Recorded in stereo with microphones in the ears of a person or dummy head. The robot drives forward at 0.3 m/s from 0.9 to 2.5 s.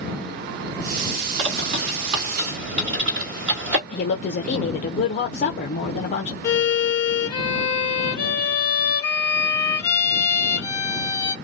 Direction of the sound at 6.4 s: 20° left (ahead or behind).